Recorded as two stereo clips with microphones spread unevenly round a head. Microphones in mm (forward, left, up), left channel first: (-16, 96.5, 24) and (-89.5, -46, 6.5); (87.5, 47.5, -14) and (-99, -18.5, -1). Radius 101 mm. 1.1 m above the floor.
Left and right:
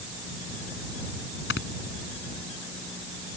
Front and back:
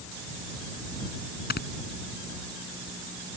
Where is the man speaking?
I don't hear a man speaking.